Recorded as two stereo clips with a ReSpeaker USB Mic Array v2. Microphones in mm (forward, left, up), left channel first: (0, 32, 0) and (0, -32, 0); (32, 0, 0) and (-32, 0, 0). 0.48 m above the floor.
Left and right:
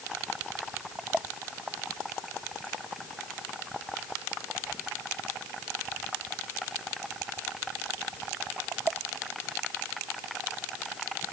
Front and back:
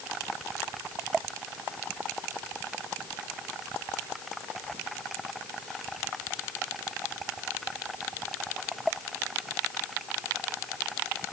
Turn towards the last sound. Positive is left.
No sound to turn to.